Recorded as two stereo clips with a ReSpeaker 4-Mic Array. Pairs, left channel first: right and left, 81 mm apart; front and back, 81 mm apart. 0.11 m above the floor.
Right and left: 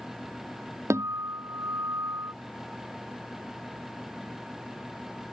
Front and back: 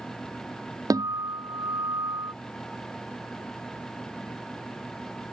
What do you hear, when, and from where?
0.9 s a guitar: 145° left